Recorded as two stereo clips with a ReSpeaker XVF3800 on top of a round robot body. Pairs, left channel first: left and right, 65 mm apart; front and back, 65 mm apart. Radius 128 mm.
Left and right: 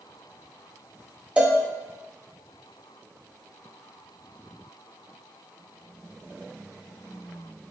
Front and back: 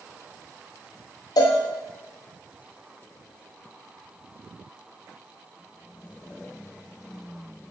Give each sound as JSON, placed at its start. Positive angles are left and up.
{"t": 1.4, "sound": "a cowbell", "azimuth_deg": -20, "distance_m": 0.7}